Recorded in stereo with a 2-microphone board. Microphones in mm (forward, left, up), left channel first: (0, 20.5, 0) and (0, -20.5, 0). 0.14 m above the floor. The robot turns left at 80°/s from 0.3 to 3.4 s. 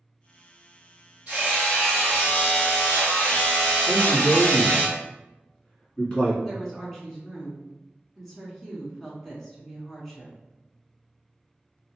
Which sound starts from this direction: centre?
A woman speaking, at 6.4 s.